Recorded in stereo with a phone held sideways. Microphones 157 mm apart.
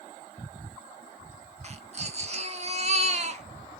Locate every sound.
1.6 s a baby crying: 45° right (ahead or behind), 1.2 m